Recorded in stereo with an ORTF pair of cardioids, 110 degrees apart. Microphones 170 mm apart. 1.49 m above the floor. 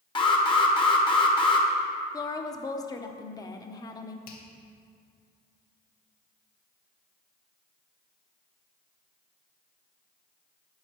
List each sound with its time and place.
0.1 s an alarm: 30° left, 1.4 m
2.1 s a woman speaking: 20° left, 0.9 m
4.3 s a finger snap: 65° left, 1.7 m